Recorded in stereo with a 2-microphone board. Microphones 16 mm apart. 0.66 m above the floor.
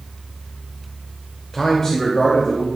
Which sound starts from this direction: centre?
A man speaking, at 1.5 s.